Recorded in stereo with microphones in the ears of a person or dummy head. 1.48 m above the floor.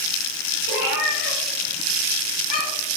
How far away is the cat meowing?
About 1.7 m.